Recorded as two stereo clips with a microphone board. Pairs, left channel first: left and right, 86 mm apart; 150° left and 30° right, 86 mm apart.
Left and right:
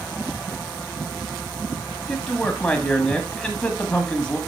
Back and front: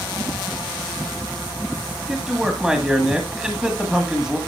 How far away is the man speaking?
About 1.6 m.